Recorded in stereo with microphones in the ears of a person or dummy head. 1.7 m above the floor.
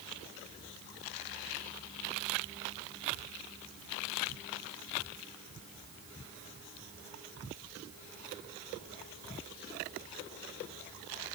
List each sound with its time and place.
Only background noise.